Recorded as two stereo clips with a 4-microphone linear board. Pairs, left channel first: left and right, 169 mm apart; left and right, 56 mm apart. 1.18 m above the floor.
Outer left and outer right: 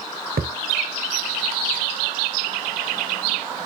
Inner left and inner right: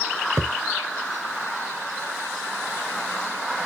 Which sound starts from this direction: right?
A thud, at 0.4 s.